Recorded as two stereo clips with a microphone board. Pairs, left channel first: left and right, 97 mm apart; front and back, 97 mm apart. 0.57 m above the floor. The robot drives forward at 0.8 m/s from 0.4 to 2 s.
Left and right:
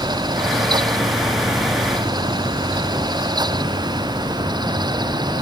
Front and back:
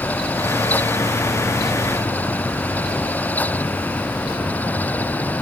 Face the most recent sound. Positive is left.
No sound to turn to.